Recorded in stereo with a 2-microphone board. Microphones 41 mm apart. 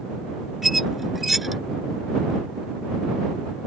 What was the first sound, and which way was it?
A squeak, 5° right (ahead or behind).